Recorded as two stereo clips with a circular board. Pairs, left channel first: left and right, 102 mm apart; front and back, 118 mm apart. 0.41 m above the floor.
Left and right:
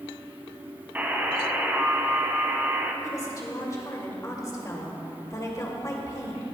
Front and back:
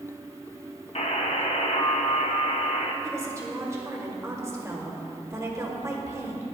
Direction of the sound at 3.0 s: 125° left.